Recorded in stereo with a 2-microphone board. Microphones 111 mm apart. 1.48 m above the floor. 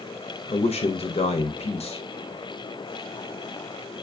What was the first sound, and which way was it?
A man speaking, 70° left (ahead or behind).